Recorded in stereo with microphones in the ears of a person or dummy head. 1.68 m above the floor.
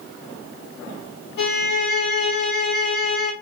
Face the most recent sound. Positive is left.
turn(degrees=60)  # may be behind; listen again after turning